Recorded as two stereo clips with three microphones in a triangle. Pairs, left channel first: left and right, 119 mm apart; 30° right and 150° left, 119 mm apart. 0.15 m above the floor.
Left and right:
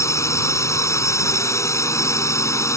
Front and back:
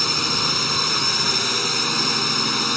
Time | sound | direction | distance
0.0 | a drone | 60° left | ?